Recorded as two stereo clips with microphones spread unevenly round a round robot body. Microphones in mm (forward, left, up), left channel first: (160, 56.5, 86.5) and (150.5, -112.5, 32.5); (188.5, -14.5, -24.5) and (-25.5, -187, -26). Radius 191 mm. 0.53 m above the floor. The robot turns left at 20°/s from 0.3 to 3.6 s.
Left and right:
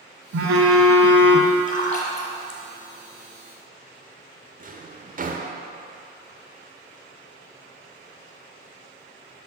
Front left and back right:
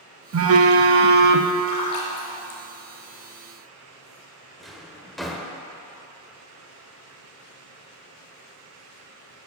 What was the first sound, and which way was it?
A phone buzzing, 105° right.